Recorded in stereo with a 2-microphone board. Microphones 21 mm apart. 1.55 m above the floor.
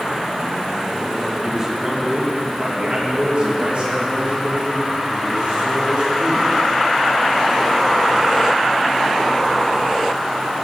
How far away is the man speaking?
About 2.5 m.